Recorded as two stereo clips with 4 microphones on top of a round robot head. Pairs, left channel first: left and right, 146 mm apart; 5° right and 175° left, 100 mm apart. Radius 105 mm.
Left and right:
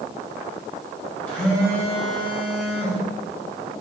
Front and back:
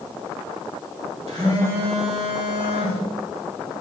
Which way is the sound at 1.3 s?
170° left.